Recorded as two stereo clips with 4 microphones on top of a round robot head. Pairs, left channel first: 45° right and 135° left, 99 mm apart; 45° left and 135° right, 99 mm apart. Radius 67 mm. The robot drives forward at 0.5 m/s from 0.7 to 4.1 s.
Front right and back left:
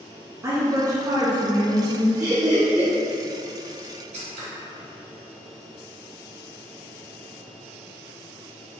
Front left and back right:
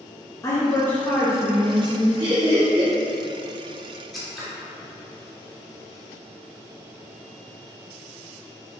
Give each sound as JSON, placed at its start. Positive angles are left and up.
{"t": 0.4, "sound": "a woman speaking", "azimuth_deg": 90, "distance_m": 0.7}
{"t": 2.2, "sound": "laughter", "azimuth_deg": -160, "distance_m": 0.9}
{"t": 4.1, "sound": "scissors", "azimuth_deg": 135, "distance_m": 1.2}